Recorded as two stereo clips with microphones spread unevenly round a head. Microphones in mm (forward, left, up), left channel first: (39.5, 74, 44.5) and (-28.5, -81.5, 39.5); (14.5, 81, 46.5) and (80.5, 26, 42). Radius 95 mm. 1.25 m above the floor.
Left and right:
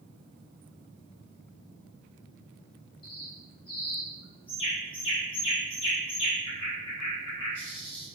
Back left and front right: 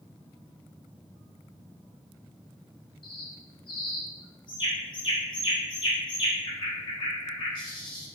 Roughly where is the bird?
Behind left.